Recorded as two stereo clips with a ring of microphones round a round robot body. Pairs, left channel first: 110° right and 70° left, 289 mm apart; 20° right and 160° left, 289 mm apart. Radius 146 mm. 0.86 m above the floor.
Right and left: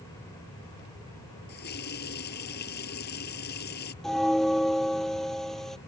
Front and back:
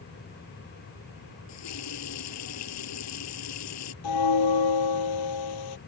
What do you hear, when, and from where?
1.5 s a running tap: 55° right
4.0 s a bell: 25° right